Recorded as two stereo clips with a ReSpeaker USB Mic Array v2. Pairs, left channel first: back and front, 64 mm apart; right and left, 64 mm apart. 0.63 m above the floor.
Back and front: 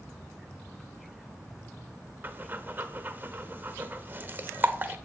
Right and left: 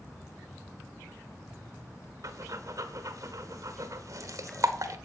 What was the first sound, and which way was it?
Breathing, 60° left.